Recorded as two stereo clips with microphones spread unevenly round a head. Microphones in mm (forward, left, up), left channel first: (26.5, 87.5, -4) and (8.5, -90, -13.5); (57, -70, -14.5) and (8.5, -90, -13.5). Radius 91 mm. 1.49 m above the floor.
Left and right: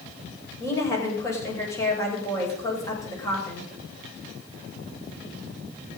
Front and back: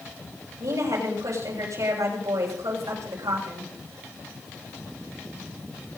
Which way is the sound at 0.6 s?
160° left.